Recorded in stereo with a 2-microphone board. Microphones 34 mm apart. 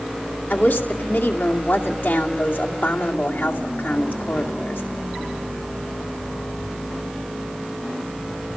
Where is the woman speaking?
80° left, 2.5 m.